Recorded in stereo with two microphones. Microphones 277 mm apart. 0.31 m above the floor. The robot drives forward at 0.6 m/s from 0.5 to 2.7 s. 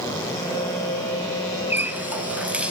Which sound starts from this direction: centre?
A running tap, at 1.7 s.